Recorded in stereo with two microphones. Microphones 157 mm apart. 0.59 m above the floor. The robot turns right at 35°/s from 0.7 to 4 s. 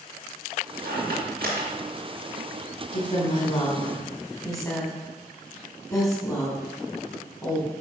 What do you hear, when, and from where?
0.8 s a squeak: 75° right (ahead or behind), 3.5 m
2.9 s a woman speaking: 50° left (ahead or behind), 2.5 m; by 7.7 s 20° left (ahead or behind), 2.5 m